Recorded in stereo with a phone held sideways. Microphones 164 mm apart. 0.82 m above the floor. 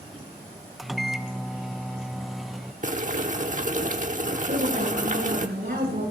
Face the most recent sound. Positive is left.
turn(degrees=-85)